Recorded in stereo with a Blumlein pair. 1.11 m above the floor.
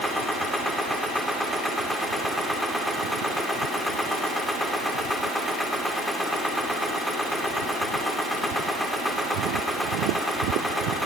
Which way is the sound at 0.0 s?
Straight ahead.